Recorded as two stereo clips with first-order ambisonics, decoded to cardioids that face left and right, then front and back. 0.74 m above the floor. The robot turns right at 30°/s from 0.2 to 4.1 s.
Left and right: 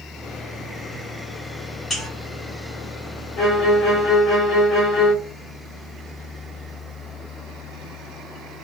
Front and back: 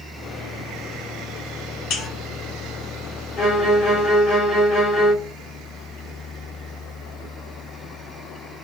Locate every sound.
1.9 s a buzzer: 20° left, 1.7 m; by 2.1 s 25° left, 1.7 m
3.4 s a violin: 45° left, 1.5 m; by 5.1 s 70° left, 1.5 m